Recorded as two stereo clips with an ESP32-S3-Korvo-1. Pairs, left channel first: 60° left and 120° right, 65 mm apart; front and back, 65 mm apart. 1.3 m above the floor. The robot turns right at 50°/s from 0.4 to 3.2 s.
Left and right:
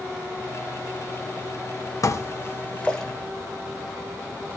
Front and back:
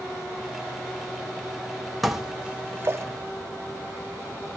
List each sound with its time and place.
2.0 s dishes clattering: 90° left, 0.9 m; by 3.0 s 140° left, 0.9 m